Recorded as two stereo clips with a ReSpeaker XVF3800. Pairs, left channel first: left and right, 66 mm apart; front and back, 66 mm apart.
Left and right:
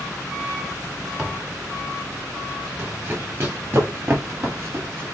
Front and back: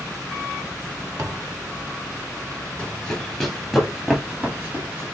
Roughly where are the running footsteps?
Ahead right.